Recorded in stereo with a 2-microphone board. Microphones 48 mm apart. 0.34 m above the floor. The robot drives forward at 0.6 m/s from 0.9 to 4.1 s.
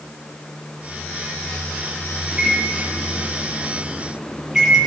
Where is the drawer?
No drawer in this recording.